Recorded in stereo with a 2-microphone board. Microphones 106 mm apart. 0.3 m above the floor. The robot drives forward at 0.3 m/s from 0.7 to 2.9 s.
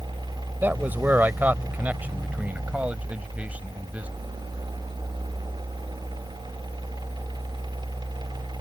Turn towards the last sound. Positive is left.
turn(degrees=-15)  # may be behind; listen again after turning